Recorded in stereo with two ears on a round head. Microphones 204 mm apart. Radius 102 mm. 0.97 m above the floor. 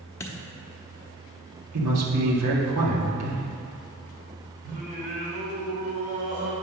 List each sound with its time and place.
0.2 s a dropped coin: 10° left (ahead or behind), 0.9 m
1.7 s a man speaking: 75° right (ahead or behind), 1.9 m
4.6 s singing: 45° right (ahead or behind), 2.5 m